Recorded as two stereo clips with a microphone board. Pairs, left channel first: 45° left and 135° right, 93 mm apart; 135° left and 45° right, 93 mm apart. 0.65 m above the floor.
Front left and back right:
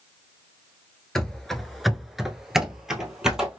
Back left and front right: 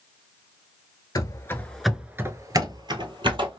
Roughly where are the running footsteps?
Behind left.